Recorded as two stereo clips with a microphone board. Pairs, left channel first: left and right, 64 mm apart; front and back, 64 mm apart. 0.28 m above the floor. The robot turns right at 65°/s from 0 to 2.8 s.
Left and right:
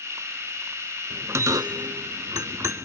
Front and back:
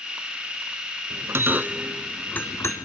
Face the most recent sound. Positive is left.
turn(degrees=-35)